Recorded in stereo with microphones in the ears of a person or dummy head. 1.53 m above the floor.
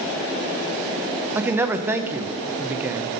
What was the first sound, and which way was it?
A man speaking, 15° right (ahead or behind).